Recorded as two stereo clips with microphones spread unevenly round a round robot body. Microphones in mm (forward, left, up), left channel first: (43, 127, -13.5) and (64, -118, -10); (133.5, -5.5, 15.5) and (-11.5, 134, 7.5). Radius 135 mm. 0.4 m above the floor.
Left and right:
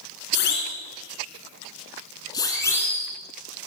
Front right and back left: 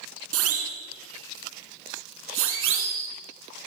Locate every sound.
0.3 s a siren: 150° left, 4 m; by 3.1 s straight behind, 3.5 m